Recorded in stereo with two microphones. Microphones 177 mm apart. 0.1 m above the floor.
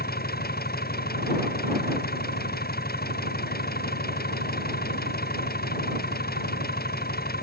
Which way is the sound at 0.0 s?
60° left (ahead or behind).